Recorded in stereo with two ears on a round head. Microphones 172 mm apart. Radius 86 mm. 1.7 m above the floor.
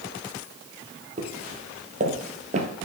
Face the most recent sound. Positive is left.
turn(degrees=-40)  # may be behind; listen again after turning